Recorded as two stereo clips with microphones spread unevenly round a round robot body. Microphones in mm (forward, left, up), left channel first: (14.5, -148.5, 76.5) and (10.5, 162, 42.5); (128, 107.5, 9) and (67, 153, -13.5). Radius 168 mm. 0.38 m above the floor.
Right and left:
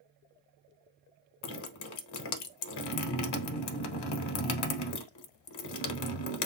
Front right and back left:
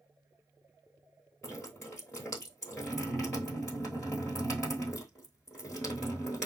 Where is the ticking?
I don't hear ticking.